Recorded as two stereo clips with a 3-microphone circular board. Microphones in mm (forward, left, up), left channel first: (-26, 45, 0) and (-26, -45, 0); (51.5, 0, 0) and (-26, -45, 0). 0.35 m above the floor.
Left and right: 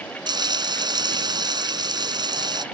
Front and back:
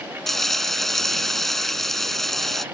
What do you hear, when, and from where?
0.3 s frying: 55° right